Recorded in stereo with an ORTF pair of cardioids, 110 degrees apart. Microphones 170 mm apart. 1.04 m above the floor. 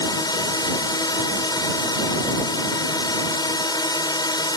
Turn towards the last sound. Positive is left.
turn(degrees=25)